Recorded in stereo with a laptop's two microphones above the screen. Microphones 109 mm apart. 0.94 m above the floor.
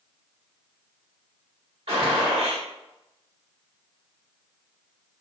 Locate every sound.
1.9 s a gunshot: 60° right (ahead or behind), 1.6 m